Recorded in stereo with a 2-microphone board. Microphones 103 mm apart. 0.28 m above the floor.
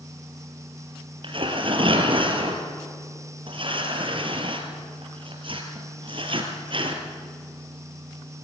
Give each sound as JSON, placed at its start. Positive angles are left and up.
{"t": 1.2, "sound": "tearing paper", "side_deg": -55, "distance_m": 3.5}